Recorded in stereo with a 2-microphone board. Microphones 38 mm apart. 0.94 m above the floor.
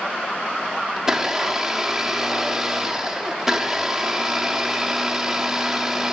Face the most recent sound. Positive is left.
turn(degrees=-15)  # may be behind; listen again after turning